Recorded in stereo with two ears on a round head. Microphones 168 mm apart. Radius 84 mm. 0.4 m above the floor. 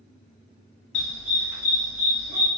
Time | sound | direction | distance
0.9 | a dog barking | 70° left (ahead or behind) | 0.7 m